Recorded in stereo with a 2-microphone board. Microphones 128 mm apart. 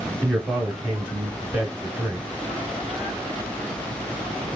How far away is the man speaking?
About 1.3 m.